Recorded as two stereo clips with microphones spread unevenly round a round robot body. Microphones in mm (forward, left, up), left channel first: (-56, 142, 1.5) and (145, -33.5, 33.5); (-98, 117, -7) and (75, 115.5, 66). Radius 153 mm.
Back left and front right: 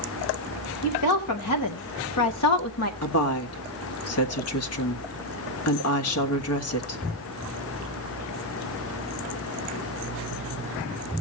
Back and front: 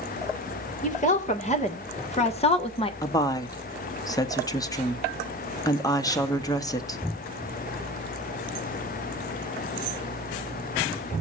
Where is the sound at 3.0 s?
120° left, 1.7 m.